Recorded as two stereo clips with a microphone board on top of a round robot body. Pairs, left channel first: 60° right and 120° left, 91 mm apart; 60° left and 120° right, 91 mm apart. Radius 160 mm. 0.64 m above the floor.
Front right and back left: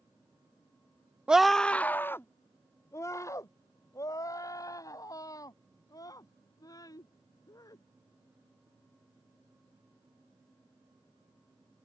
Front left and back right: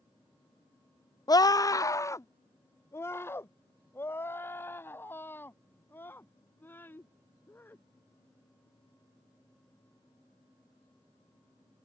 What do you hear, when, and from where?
1.3 s a scream: 45° left; by 7.8 s 10° right